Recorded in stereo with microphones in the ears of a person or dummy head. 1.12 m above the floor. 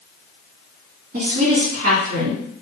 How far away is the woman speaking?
About 1.6 m.